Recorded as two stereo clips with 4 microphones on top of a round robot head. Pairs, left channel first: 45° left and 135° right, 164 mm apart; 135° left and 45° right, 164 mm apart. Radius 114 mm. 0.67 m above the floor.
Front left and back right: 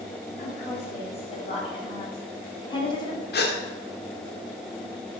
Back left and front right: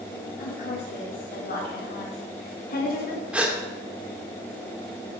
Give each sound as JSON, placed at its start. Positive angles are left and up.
{"t": 0.4, "sound": "a woman speaking", "azimuth_deg": 100, "distance_m": 5.5}
{"t": 3.3, "sound": "a gasp", "azimuth_deg": 35, "distance_m": 2.0}